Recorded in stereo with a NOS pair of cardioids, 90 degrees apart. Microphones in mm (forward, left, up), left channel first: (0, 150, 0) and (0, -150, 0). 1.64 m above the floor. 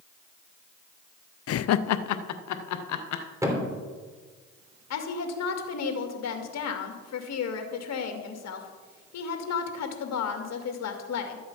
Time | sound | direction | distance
1.5 | laughter | 50° left | 0.6 m
3.4 | a thud | 10° right | 3 m
4.9 | a woman speaking | 60° left | 2 m